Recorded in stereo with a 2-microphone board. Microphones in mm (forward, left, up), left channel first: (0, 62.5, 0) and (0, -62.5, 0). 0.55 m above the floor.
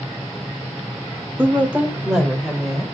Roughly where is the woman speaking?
Centre.